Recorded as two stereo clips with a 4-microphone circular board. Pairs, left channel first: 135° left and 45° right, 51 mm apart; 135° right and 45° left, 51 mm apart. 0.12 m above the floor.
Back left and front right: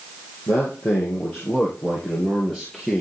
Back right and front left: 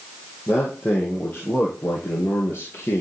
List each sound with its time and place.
0.5 s a man speaking: 175° left, 2.5 m; by 3.0 s 140° right, 2 m